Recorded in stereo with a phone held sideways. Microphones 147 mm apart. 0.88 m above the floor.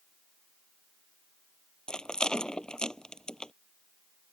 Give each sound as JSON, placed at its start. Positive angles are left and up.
{"t": 1.9, "sound": "a rattle", "side_deg": 5}